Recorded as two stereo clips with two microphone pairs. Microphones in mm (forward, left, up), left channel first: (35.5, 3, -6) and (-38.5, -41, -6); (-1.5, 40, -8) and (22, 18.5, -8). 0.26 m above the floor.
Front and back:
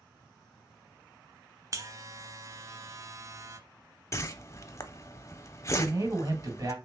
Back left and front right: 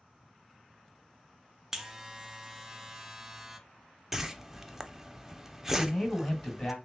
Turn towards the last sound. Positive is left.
turn(degrees=-165)